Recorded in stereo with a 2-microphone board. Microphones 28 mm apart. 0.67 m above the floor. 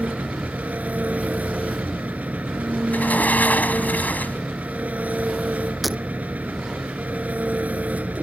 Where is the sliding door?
80° left.